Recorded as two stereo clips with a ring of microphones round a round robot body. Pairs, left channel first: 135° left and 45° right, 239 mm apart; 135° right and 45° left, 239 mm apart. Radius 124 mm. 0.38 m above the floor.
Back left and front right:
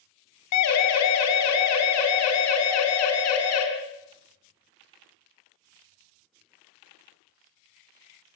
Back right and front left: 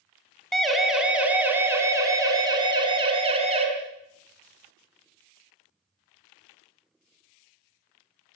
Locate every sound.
0.5 s a siren: 135° left, 3.5 m; by 3.6 s 110° left, 4.5 m